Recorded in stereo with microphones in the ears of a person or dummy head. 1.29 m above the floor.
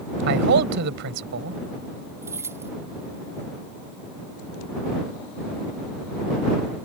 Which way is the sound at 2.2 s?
15° right (ahead or behind).